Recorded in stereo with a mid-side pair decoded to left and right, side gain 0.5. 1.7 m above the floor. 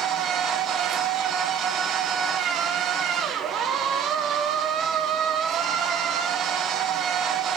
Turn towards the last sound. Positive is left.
turn(degrees=-60)